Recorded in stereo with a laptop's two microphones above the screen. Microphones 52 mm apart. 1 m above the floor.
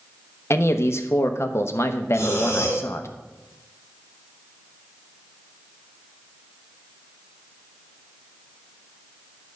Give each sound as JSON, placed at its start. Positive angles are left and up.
{"t": 0.5, "sound": "a man speaking", "side_deg": 55, "distance_m": 1.0}
{"t": 2.1, "sound": "breathing", "side_deg": 65, "distance_m": 2.5}